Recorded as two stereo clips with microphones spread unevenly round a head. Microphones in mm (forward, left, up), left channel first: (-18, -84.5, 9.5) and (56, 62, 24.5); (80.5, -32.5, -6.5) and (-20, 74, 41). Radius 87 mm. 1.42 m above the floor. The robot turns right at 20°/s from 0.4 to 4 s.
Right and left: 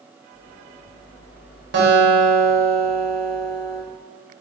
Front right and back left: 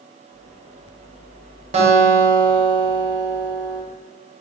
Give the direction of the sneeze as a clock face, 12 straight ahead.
No sneeze in this recording.